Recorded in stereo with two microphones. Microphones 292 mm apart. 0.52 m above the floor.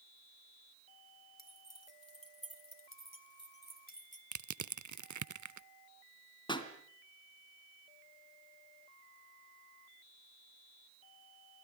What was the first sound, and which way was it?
Keys jangling, 60° left (ahead or behind).